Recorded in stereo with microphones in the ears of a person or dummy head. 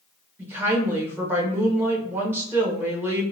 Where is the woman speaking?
10° right (ahead or behind), 1.1 m.